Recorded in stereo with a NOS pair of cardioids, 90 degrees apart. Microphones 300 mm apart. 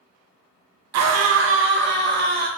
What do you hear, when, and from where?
0.9 s a scream: 65° right, 0.7 m; by 2.5 s 30° right, 1.5 m